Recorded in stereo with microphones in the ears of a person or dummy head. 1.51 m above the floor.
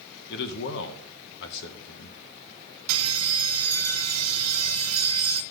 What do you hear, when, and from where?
0.3 s a man speaking: 60° left (ahead or behind), 1.1 m
2.9 s a bell: 80° right, 0.8 m